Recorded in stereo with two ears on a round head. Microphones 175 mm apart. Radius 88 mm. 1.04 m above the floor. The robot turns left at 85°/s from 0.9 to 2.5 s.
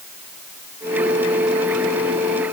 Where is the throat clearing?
No throat clearing in this recording.